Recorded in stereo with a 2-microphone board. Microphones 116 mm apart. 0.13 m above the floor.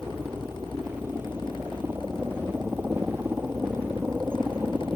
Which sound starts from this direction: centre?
A helicopter, at 0.0 s.